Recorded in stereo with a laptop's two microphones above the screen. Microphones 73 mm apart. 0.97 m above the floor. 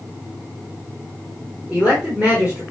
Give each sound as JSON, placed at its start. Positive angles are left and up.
{"t": 1.7, "sound": "a man speaking", "side_deg": -15, "distance_m": 3.5}